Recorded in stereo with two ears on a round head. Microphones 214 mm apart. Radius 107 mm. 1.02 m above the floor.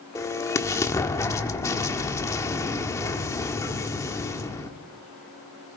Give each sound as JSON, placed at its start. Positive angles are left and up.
{"t": 0.1, "sound": "an explosion", "side_deg": 15, "distance_m": 1.4}